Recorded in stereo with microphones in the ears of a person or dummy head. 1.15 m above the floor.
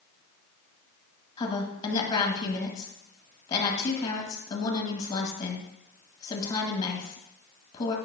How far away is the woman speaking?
About 1.6 m.